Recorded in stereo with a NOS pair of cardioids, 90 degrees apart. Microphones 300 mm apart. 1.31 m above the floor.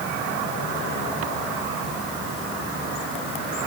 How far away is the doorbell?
No doorbell in this recording.